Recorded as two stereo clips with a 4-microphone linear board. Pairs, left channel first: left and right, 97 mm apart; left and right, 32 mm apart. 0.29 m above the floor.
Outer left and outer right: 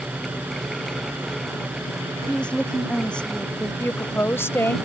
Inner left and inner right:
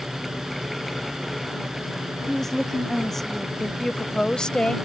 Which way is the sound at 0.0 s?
20° right (ahead or behind).